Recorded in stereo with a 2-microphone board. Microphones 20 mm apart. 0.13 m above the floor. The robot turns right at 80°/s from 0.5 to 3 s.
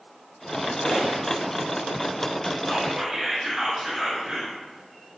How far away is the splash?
About 1.1 m.